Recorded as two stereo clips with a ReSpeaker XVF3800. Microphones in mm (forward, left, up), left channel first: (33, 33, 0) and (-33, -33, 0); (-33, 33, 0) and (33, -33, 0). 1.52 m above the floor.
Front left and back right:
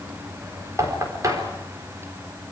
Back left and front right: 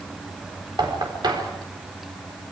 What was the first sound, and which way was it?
Knocking, 80° right.